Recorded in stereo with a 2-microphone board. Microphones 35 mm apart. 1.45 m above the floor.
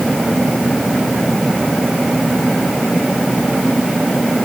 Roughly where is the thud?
I don't hear a thud.